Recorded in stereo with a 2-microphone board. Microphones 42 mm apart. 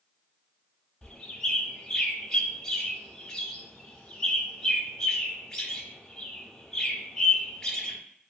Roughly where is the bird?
Centre.